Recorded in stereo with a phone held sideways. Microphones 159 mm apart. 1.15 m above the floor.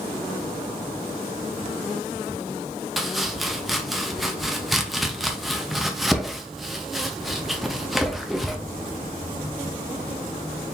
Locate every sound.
3.0 s chopping: centre (ahead or behind), 0.7 m